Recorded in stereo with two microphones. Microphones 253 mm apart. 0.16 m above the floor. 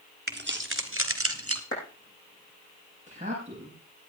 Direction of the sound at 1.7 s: 55° left (ahead or behind).